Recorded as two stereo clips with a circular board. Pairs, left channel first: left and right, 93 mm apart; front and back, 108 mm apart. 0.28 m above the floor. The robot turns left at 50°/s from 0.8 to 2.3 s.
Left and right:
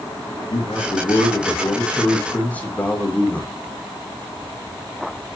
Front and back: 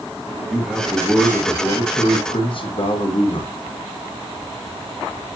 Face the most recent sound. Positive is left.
turn(degrees=20)